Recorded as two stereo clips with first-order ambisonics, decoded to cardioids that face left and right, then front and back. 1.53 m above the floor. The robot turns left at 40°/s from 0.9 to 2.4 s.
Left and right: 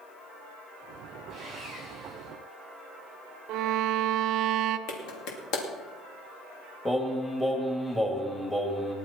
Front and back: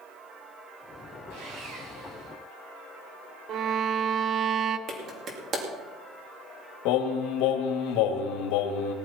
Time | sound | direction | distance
1.3 | sawing | 155° right | 6.5 m
3.5 | a violin | 130° right | 0.7 m
4.9 | a clap | 125° left | 2.5 m
6.8 | singing | 10° left | 2 m